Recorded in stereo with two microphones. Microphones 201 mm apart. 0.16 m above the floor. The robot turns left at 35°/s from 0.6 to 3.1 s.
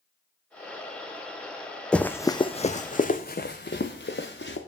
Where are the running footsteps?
5° left (ahead or behind), 0.6 m; by 4.6 s 70° left (ahead or behind), 1.6 m.